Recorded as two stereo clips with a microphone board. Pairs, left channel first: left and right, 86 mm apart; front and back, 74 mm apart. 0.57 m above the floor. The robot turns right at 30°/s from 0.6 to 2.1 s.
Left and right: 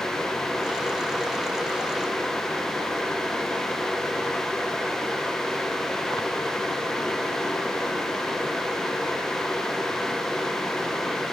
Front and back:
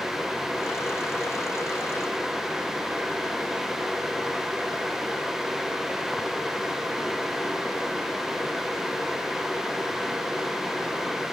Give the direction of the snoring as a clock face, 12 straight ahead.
I don't hear snoring.